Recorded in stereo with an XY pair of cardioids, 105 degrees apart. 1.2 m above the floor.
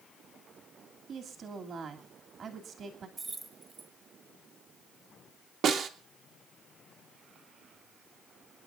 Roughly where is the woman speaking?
Ahead right.